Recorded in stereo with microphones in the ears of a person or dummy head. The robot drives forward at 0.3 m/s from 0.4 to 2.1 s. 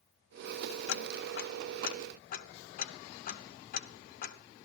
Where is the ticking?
70° left (ahead or behind), 0.6 m; by 4.4 s 45° left (ahead or behind), 0.8 m.